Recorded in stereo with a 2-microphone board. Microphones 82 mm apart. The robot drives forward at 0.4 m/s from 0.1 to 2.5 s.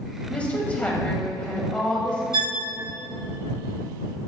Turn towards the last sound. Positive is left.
turn(degrees=-85)